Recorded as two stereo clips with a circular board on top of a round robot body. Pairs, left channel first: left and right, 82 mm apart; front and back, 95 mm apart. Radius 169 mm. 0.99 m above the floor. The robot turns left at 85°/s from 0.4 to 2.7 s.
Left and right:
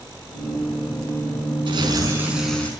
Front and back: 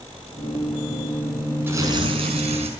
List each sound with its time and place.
1.7 s tearing paper: 110° right, 5 m; by 2.7 s 160° left, 5 m